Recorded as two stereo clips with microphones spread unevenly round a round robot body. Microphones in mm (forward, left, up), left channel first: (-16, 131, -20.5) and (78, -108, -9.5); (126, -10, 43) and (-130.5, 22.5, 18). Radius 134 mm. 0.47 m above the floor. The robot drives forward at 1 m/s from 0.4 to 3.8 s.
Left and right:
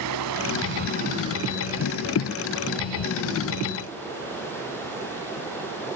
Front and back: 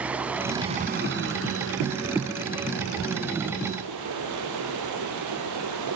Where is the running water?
100° right, 0.9 m; by 6.0 s 165° right, 3.5 m.